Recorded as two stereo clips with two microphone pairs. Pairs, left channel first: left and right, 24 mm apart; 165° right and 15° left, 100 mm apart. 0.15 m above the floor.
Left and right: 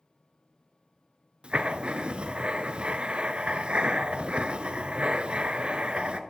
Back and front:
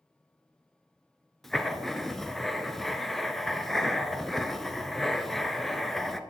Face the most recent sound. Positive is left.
turn(degrees=-80)